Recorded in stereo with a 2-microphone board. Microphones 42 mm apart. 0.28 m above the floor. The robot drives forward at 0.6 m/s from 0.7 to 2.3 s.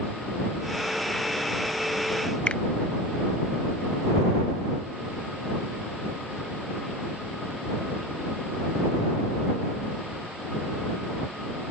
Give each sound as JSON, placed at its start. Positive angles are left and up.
{"t": 2.5, "sound": "a finger snap", "side_deg": 30}